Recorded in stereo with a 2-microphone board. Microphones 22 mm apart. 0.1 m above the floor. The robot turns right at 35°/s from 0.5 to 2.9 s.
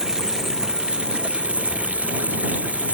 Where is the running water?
155° right; by 3.0 s 70° right.